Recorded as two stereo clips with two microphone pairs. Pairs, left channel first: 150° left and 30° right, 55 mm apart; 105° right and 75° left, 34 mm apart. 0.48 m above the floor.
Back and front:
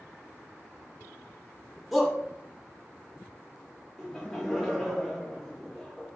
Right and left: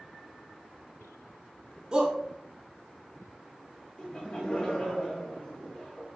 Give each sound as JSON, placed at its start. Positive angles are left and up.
{"t": 1.9, "sound": "a shout", "azimuth_deg": 55, "distance_m": 0.7}
{"t": 4.0, "sound": "laughter", "azimuth_deg": -125, "distance_m": 0.8}